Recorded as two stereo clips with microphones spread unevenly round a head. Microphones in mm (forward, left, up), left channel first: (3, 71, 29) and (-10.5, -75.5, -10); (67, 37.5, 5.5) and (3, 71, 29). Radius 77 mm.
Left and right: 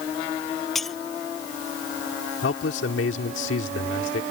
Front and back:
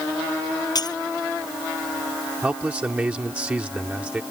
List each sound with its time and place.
0.8 s breaking glass: 5° right
2.4 s a man speaking: 80° left